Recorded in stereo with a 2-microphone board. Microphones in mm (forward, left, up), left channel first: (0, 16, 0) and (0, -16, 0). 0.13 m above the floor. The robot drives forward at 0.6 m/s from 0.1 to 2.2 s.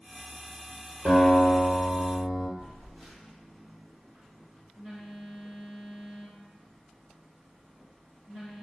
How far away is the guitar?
About 1.3 m.